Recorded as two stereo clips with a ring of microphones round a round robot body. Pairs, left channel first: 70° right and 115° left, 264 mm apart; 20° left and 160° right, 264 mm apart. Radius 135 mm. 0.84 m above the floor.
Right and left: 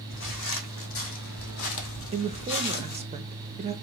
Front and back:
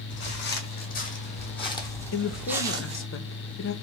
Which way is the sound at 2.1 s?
50° left.